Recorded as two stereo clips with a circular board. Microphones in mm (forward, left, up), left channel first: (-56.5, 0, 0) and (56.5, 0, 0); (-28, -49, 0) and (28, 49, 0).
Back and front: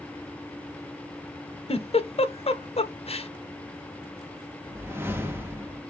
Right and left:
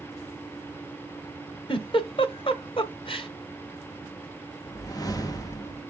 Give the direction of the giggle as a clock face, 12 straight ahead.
5 o'clock.